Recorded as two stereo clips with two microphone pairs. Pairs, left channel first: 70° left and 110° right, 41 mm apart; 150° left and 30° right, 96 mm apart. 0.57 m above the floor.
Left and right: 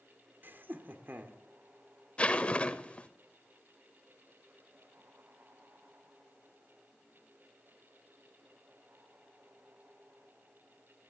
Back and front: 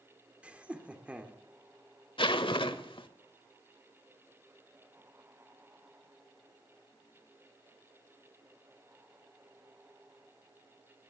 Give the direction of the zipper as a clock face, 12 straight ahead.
8 o'clock.